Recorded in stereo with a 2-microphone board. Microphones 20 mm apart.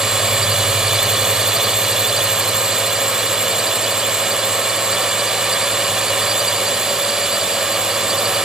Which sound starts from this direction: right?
A drone, at 0.0 s.